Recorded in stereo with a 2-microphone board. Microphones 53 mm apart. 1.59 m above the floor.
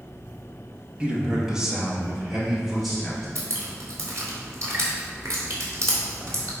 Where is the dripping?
60° right (ahead or behind), 2.5 m.